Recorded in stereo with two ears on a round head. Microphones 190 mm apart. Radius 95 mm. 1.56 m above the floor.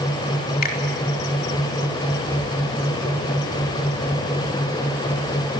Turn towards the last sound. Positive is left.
turn(degrees=45)  # may be behind; listen again after turning